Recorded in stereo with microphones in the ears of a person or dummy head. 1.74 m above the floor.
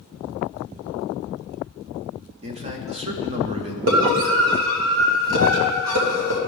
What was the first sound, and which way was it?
A man speaking, 30° right (ahead or behind).